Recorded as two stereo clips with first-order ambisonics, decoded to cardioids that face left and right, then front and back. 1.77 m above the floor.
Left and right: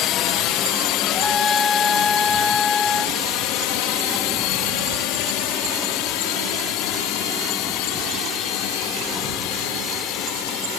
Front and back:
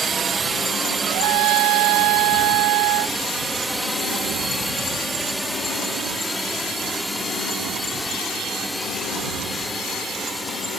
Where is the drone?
115° left; by 10.8 s 85° left.